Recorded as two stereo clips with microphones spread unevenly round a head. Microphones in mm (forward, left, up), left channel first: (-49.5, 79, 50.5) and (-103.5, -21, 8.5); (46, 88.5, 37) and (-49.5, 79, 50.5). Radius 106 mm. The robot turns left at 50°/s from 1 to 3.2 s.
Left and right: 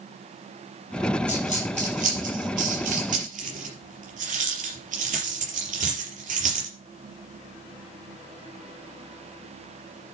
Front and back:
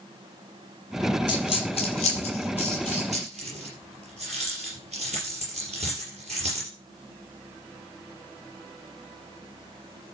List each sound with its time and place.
1.3 s a dropped coin: 30° right, 4.5 m; by 6.7 s 125° right, 4.5 m